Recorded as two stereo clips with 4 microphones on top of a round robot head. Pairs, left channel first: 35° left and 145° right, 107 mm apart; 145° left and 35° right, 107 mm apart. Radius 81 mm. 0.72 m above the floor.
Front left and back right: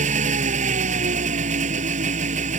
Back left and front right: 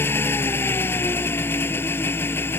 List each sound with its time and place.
0.0 s an engine running: 145° right